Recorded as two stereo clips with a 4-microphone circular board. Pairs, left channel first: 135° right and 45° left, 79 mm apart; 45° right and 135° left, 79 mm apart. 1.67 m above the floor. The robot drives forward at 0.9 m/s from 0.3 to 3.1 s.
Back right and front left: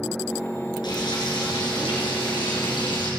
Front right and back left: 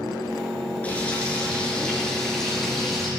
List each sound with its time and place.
0.8 s frying: 115° right, 4.5 m; by 3.1 s 135° right, 5.5 m